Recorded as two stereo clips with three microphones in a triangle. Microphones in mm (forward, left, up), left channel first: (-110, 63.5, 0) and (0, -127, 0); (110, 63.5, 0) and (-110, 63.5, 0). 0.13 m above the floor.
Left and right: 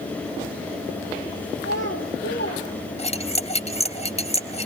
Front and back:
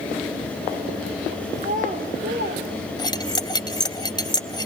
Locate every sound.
1.6 s a child speaking: 130° left, 2.5 m; by 2.6 s 150° left, 2 m
3.0 s cutlery clinking: 70° left, 1.1 m